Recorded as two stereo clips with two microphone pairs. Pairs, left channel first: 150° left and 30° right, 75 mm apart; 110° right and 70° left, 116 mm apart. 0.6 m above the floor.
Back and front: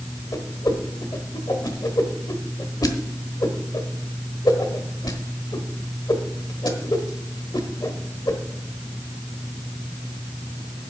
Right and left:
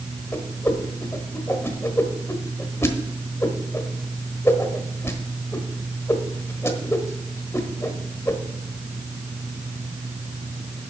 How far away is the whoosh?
About 1.2 m.